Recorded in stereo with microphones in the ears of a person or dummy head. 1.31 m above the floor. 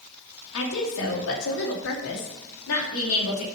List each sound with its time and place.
0.5 s a woman speaking: 85° left, 1.8 m; by 3.4 s 65° left (ahead or behind), 3 m